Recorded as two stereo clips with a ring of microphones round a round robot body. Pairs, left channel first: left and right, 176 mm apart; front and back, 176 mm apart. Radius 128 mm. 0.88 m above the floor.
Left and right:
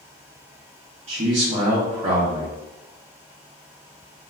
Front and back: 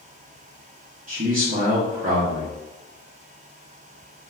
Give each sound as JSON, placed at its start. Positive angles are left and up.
{"t": 1.1, "sound": "a man speaking", "azimuth_deg": -140, "distance_m": 0.6}